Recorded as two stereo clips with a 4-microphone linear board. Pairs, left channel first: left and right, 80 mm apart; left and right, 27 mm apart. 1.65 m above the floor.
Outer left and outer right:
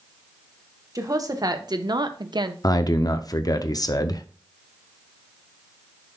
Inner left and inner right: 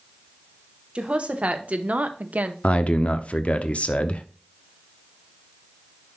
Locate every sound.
0.9 s a woman speaking: 45° right (ahead or behind), 1.4 m; by 2.5 s 60° right (ahead or behind), 0.9 m
2.6 s a man speaking: 50° left (ahead or behind), 0.6 m